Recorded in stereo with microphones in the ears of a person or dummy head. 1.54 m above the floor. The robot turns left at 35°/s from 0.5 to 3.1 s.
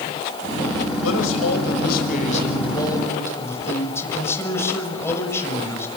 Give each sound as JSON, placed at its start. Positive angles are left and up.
{"t": 1.0, "sound": "a man speaking", "azimuth_deg": 95, "distance_m": 7.0}